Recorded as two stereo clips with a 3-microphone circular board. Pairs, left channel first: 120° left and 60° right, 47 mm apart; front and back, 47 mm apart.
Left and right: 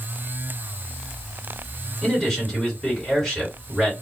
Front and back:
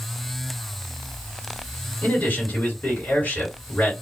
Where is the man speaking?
45° left, 1.8 m.